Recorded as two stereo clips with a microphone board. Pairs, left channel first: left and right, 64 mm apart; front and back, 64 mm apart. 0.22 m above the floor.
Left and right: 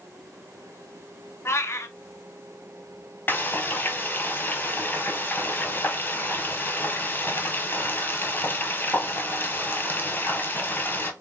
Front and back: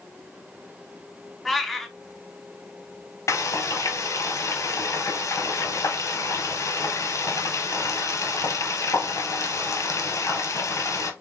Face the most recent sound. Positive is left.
turn(degrees=30)